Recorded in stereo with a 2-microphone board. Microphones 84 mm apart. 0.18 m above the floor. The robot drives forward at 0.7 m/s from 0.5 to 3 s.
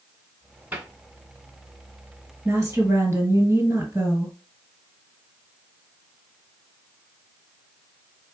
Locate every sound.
0.7 s a cupboard door: 20° right (ahead or behind), 1.9 m
2.5 s a woman speaking: 25° right (ahead or behind), 2 m